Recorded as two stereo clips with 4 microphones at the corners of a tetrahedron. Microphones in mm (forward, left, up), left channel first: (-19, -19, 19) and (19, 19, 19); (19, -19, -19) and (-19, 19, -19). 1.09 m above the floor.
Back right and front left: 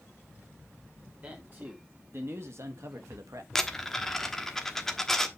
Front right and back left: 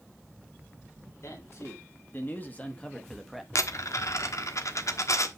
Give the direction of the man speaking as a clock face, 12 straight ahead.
12 o'clock.